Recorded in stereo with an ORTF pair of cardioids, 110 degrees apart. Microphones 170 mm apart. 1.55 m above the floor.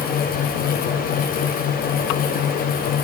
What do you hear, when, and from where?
0.0 s a fan: 60° left, 1.1 m